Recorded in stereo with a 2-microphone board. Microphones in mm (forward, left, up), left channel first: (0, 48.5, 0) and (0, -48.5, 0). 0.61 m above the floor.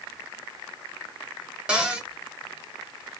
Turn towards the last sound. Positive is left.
turn(degrees=-10)  # may be behind; listen again after turning